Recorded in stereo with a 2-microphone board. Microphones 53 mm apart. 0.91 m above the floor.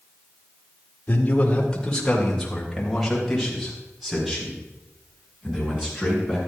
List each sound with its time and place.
1.1 s a man speaking: 30° left (ahead or behind), 1.9 m; by 6.4 s 10° right (ahead or behind), 7.5 m